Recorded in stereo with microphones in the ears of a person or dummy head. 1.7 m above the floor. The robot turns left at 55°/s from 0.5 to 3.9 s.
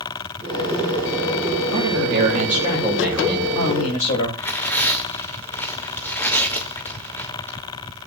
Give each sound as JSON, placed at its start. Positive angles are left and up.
{"t": 1.7, "sound": "a man speaking", "azimuth_deg": -100, "distance_m": 9.5}
{"t": 4.4, "sound": "tearing paper", "side_deg": 15, "distance_m": 2.5}